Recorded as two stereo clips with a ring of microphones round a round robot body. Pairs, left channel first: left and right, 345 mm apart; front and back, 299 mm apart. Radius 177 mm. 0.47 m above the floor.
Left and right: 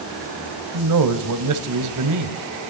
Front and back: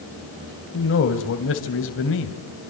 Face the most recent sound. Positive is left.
turn(degrees=-55)